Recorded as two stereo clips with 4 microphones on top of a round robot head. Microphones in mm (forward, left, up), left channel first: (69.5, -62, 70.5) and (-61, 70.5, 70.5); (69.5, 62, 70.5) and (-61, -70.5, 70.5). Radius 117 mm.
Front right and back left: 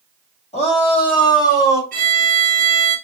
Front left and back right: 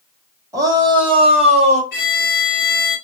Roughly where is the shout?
Right.